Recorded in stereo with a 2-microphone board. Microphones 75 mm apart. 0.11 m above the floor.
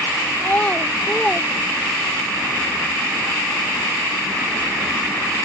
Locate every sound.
0.4 s a child speaking: 25° left (ahead or behind); by 2.3 s 10° right (ahead or behind)